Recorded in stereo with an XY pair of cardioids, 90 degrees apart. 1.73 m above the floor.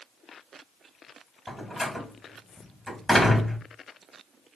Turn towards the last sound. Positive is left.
turn(degrees=10)